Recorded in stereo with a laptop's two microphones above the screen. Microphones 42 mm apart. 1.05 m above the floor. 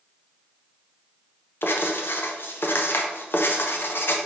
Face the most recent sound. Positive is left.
turn(degrees=60)  # may be behind; listen again after turning